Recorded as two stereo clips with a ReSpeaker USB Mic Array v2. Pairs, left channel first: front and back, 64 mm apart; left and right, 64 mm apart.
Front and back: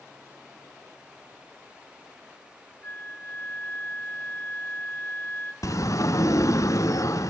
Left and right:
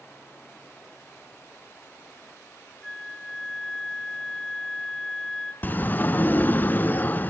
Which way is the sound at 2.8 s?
5° right.